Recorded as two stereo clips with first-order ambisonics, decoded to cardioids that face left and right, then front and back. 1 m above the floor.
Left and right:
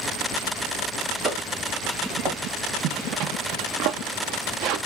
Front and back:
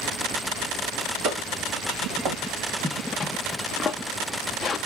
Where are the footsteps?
145° right, 3 m; by 2.4 s 130° right, 4 m.